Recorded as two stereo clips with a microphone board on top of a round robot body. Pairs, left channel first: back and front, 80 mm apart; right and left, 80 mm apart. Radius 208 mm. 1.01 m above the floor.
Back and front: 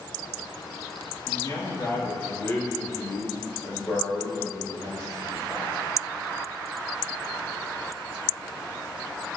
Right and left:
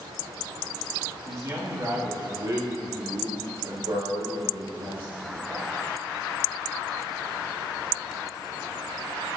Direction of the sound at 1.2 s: 145° left.